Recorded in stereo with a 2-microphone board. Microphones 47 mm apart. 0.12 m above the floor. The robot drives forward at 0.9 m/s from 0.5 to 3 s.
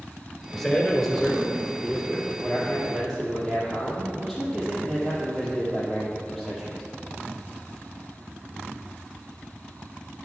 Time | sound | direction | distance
0.5 | a man speaking | 10° left (ahead or behind) | 1.4 m